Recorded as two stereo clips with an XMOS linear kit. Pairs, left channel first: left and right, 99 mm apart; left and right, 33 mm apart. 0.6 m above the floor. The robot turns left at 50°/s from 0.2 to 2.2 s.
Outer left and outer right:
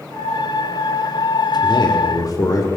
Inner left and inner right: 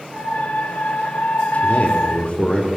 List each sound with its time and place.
1.6 s a man speaking: 50° left (ahead or behind), 1.7 m; by 2.7 s 35° left (ahead or behind), 1.7 m